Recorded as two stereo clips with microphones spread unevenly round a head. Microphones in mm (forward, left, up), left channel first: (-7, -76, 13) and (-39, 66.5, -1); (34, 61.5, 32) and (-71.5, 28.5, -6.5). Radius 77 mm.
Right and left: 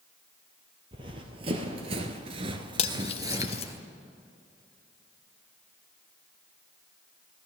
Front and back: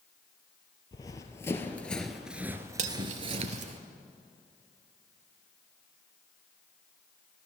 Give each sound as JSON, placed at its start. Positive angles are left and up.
{"t": 0.9, "sound": "running footsteps", "azimuth_deg": 45, "distance_m": 1.6}
{"t": 2.8, "sound": "cutlery clinking", "azimuth_deg": -125, "distance_m": 0.8}